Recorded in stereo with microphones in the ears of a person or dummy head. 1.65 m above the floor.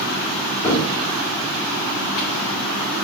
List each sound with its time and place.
0.6 s a cupboard door: 15° left (ahead or behind), 3.5 m